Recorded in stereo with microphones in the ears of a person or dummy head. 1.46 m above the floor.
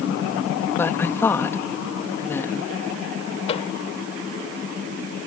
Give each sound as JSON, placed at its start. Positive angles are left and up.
{"t": 0.8, "sound": "a woman speaking", "side_deg": 10}
{"t": 3.5, "sound": "a microwave", "side_deg": 30}